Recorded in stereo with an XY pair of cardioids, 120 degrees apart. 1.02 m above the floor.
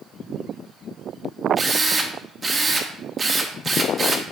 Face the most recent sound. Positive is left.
turn(degrees=-30)